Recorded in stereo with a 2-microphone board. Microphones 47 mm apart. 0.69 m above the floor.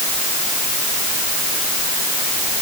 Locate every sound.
Only background noise.